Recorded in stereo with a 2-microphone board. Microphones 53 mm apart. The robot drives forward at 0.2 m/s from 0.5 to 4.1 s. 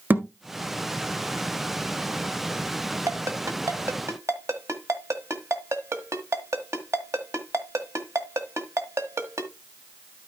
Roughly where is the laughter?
I don't hear laughter.